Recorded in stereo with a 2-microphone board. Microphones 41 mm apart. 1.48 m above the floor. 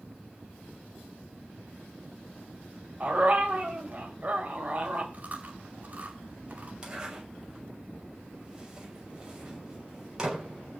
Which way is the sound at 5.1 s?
35° right (ahead or behind).